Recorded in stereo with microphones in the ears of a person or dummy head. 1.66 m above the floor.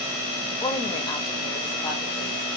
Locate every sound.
0.5 s a woman speaking: 25° left (ahead or behind), 0.9 m